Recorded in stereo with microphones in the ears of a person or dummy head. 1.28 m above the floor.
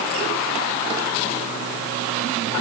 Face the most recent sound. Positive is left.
No sound to turn to.